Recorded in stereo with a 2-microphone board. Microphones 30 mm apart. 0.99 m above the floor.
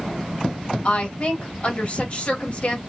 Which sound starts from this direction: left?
A woman speaking, at 0.8 s.